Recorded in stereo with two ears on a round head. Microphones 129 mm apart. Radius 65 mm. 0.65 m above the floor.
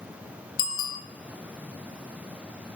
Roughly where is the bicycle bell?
Left.